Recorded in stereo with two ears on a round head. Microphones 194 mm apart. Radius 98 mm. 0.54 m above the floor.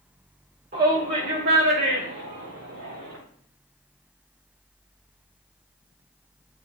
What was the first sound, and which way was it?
A shout, 40° right (ahead or behind).